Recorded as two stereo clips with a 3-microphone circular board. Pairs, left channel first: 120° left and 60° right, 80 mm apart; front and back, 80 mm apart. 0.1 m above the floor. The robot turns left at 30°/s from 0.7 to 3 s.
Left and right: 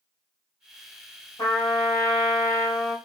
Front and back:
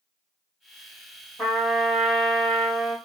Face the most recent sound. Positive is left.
turn(degrees=50)